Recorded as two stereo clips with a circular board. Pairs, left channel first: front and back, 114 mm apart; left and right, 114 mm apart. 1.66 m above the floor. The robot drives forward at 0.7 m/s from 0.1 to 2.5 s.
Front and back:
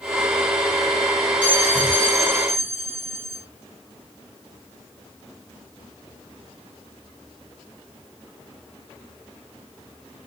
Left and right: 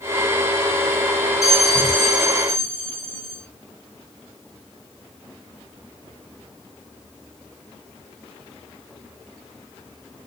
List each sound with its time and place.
1.4 s a bell: 75° right, 3.5 m; by 3.5 s 85° right, 3 m